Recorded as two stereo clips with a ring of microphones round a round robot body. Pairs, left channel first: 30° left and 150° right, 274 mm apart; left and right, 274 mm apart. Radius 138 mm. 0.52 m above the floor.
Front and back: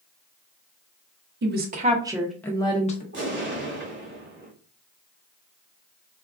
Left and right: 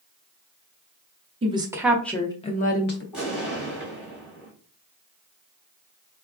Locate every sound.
1.4 s a woman speaking: 145° right, 0.7 m; by 3.0 s 75° left, 0.7 m
3.1 s an explosion: 175° right, 1.6 m